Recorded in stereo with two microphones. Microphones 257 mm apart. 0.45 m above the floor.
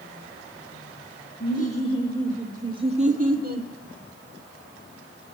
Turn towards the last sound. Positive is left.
turn(degrees=-40)  # may be behind; listen again after turning